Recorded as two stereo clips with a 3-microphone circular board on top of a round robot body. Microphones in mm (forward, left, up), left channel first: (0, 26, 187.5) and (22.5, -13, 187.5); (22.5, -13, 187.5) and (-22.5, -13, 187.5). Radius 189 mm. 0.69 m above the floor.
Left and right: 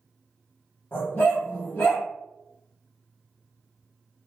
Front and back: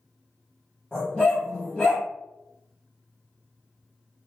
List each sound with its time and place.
0.9 s a dog barking: 80° left, 0.6 m